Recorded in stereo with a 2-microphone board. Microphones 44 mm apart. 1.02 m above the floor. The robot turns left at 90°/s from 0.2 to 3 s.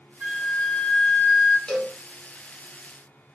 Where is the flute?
150° right, 1.4 m; by 1.6 s 90° left, 1.4 m.